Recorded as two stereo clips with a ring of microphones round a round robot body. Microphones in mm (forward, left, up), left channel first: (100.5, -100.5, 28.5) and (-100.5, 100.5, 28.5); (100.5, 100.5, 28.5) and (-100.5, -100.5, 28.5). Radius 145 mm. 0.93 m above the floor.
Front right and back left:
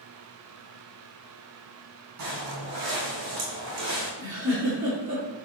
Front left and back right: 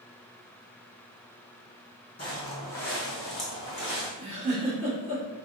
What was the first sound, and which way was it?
Footsteps, 115° left.